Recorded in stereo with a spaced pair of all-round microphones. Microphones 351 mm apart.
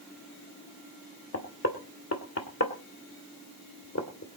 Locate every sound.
1.3 s knocking: 45° left (ahead or behind), 2 m